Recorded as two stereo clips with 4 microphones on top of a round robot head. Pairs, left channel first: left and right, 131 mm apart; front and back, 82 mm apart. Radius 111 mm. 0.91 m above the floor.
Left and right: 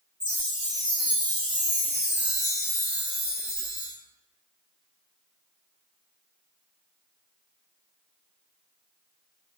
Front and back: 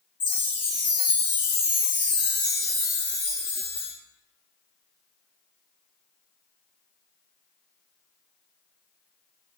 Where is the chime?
5° left, 1.1 m.